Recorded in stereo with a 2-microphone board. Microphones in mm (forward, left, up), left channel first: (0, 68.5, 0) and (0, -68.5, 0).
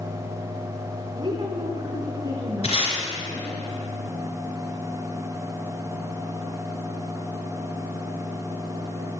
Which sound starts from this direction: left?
Tape being pulled, at 2.6 s.